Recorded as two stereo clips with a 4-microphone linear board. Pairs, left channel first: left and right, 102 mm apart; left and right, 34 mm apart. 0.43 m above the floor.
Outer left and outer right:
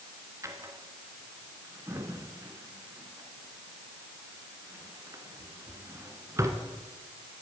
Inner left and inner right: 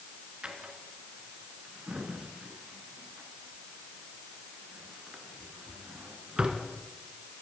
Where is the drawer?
30° right (ahead or behind), 1.9 m.